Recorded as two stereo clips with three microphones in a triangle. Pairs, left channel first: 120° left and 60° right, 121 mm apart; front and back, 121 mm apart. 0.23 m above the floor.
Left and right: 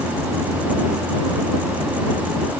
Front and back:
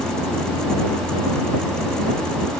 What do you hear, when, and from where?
Only background noise.